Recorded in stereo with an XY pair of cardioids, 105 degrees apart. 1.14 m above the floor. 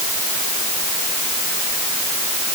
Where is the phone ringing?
No phone ringing in this recording.